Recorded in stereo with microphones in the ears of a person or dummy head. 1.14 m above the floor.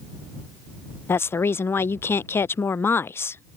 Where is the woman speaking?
10° left (ahead or behind).